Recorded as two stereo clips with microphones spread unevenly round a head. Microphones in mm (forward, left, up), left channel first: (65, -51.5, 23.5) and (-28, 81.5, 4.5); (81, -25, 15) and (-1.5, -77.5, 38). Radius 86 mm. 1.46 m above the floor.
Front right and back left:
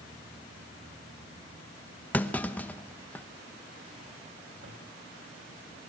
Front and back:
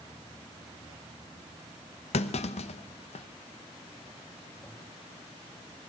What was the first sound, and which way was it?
A clunk, 20° left.